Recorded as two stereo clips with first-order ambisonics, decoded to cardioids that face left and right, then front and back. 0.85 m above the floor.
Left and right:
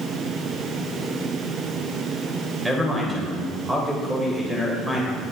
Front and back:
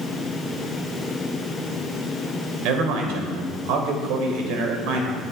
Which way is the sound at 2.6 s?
175° right.